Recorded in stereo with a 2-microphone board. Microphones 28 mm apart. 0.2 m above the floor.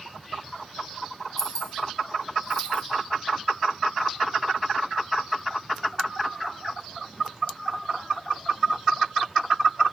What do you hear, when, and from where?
1.4 s keys jangling: 25° left (ahead or behind), 2.5 m; by 2.8 s 45° left (ahead or behind), 1.4 m